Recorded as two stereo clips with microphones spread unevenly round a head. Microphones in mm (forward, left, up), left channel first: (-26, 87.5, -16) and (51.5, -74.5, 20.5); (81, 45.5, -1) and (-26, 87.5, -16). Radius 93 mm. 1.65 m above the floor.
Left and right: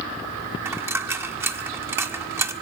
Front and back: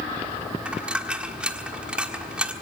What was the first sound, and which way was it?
A dropped coin, 115° right.